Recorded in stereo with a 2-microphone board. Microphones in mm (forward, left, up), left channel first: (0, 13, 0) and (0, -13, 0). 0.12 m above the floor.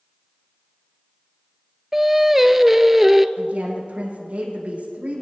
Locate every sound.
1.9 s singing: 15° right (ahead or behind), 0.6 m
3.4 s a woman speaking: 65° right (ahead or behind), 6 m